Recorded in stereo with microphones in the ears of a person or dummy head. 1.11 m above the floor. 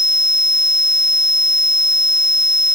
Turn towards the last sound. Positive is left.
No sound to turn to.